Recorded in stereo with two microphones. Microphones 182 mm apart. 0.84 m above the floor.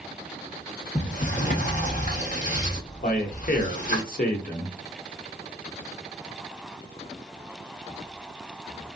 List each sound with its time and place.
0.9 s a sliding door: 45° left (ahead or behind), 1.1 m
3.0 s a man speaking: 50° left (ahead or behind), 1.0 m